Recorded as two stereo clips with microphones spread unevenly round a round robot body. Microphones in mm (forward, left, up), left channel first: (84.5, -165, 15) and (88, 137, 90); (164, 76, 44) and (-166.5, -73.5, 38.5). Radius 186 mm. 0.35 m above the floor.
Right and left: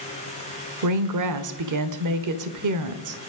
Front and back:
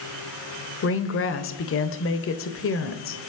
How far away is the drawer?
No drawer in this recording.